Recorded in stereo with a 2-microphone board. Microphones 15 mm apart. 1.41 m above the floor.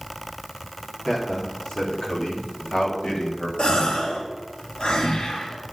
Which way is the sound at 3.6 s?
80° left.